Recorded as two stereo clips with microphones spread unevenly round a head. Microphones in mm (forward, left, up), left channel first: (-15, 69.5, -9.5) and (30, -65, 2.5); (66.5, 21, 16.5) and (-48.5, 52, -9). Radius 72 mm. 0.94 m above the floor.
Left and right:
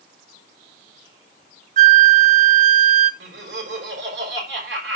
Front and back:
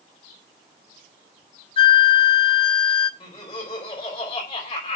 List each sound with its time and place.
1.8 s a flute: 50° right, 0.6 m
3.2 s laughter: 75° right, 5 m